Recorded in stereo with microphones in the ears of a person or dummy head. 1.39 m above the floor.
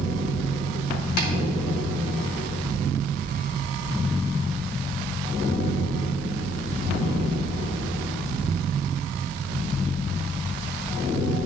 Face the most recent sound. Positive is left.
turn(degrees=55)  # may be behind; listen again after turning